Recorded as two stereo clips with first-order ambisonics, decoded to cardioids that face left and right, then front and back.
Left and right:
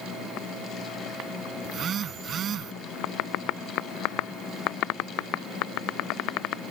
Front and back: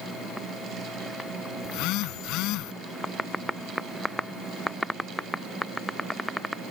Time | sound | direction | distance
1.6 | a phone buzzing | 30° right | ?